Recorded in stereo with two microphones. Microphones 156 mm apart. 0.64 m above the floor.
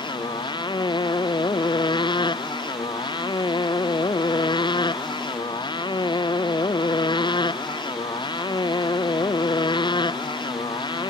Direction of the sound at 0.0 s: 30° left (ahead or behind).